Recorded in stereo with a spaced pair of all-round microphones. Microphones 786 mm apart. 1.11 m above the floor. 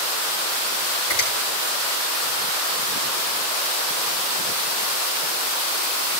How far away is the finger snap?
About 6.5 m.